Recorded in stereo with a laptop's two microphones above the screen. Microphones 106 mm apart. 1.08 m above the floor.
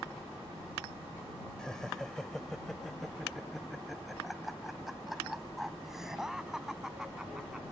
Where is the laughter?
5° left (ahead or behind); by 7.7 s 5° right (ahead or behind).